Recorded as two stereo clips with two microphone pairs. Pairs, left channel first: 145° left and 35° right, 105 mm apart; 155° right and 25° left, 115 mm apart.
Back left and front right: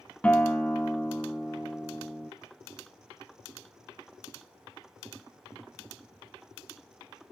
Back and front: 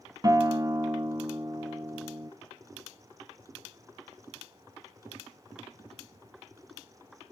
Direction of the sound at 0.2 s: 70° left.